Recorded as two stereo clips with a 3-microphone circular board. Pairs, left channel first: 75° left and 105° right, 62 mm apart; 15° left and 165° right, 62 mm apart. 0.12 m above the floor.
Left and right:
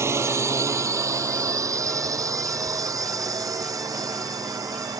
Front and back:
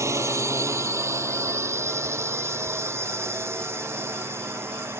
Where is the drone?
140° right; by 5.0 s 120° right.